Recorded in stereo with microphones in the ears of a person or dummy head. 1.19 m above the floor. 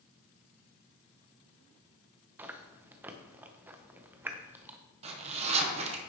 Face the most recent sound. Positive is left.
turn(degrees=-30)  # may be behind; listen again after turning